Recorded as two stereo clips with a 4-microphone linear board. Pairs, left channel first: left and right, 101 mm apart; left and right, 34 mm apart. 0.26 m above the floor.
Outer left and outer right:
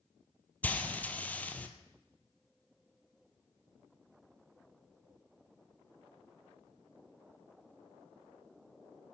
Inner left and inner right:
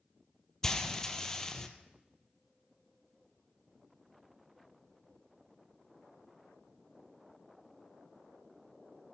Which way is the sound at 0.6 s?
15° left (ahead or behind).